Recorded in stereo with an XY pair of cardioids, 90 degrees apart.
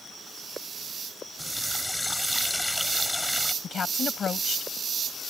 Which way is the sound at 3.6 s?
55° left.